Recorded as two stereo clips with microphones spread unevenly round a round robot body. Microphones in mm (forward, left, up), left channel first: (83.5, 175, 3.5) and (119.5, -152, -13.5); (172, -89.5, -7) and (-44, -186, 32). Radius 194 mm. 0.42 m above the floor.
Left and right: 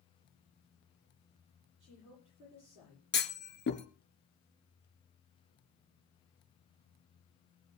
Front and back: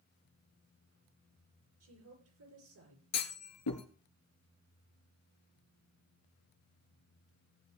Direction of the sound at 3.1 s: 40° left.